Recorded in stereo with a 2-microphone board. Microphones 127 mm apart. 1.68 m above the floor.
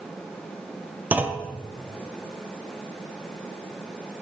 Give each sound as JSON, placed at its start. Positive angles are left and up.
{"t": 1.1, "sound": "a clunk", "side_deg": -10, "distance_m": 0.7}